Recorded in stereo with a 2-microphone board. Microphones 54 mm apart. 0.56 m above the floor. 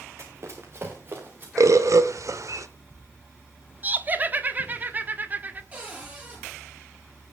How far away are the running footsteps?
About 3.5 m.